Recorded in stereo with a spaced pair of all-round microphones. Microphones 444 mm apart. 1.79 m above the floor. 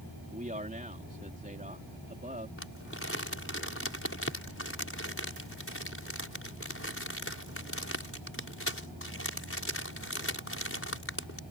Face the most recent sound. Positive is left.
turn(degrees=30)  # may be behind; listen again after turning